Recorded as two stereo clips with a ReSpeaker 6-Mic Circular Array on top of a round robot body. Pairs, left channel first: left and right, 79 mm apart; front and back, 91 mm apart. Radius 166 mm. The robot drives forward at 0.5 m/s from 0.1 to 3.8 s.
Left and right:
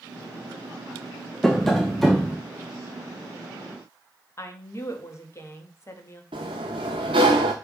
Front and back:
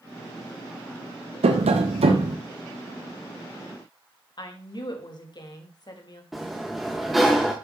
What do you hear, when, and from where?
1.4 s tapping: 175° left, 0.7 m; by 2.4 s straight behind, 1.1 m
4.4 s a woman speaking: 40° left, 2 m
6.3 s a sliding door: 90° right, 0.6 m